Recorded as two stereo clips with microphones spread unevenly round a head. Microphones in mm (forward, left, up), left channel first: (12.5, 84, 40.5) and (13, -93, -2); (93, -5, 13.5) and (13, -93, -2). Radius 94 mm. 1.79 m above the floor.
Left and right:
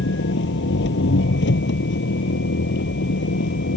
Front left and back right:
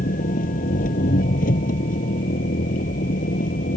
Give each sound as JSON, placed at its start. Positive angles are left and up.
{"t": 0.0, "sound": "an engine running", "azimuth_deg": 65}